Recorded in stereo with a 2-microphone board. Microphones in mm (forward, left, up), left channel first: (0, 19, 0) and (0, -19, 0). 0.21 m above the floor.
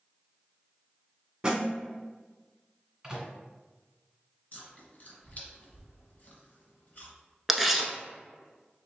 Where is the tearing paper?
5° right (ahead or behind), 0.6 m.